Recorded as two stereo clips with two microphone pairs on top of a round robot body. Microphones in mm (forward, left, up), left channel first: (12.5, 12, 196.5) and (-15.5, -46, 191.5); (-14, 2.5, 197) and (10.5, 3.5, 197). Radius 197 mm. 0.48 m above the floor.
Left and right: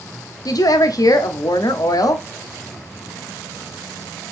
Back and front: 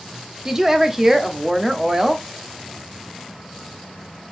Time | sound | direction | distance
0.5 | a woman speaking | 75° left | 1.2 m